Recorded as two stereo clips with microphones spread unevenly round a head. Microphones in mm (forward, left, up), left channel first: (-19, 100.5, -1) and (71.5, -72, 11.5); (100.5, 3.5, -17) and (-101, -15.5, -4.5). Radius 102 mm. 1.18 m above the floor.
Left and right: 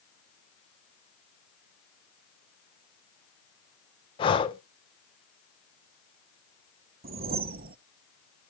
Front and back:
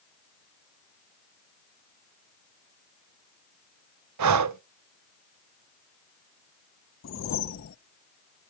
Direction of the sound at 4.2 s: 175° right.